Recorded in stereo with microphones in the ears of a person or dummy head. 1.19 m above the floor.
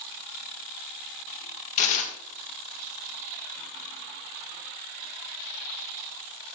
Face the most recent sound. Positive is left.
turn(degrees=35)  # may be behind; listen again after turning